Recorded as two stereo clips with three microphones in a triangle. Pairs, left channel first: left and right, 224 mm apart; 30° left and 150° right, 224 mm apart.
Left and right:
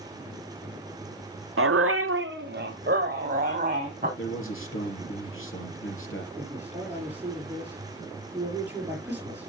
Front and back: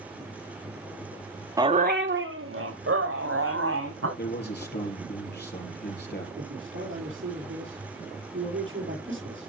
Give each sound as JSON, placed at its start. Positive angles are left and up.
{"t": 1.6, "sound": "a dog barking", "azimuth_deg": -75, "distance_m": 0.7}
{"t": 4.2, "sound": "a man speaking", "azimuth_deg": 70, "distance_m": 4.0}
{"t": 6.4, "sound": "a man speaking", "azimuth_deg": -170, "distance_m": 5.5}